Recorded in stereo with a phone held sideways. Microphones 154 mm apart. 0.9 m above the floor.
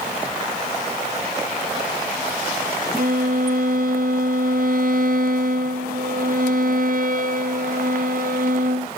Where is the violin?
60° right (ahead or behind), 0.6 m.